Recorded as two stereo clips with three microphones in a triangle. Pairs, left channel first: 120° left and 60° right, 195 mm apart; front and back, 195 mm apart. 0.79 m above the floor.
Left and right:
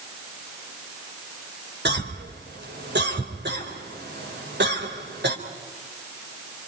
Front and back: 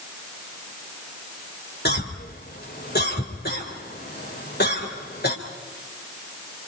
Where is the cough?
35° right, 3.5 m.